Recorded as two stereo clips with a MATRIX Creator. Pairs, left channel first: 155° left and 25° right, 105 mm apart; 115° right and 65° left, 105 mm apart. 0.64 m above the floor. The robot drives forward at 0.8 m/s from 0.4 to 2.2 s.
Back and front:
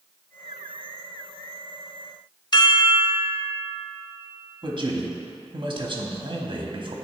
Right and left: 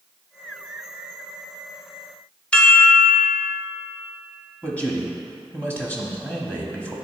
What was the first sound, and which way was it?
A chime, 175° left.